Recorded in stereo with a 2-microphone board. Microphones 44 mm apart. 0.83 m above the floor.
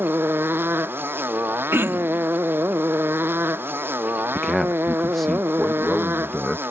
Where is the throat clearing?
65° right (ahead or behind).